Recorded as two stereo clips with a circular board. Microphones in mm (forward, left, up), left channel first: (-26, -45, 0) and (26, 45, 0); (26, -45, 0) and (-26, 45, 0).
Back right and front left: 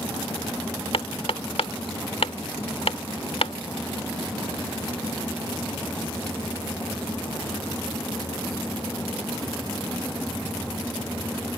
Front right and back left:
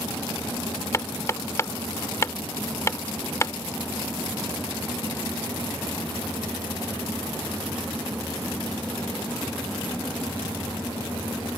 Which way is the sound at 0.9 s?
120° right.